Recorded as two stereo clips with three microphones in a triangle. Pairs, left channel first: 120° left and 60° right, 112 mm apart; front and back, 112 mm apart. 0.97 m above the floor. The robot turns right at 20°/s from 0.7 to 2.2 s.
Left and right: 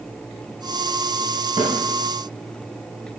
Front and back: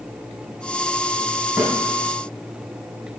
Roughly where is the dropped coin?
No dropped coin in this recording.